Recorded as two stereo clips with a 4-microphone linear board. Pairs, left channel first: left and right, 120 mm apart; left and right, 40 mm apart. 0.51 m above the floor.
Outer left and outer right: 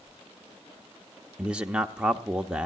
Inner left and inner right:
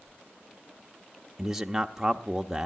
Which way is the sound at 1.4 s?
10° right (ahead or behind).